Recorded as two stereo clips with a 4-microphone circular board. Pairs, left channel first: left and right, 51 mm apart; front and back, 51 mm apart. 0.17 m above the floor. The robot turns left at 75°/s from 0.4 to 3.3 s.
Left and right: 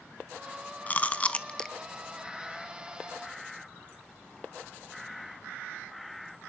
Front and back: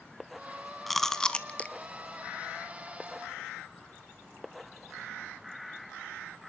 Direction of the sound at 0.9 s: 85° left.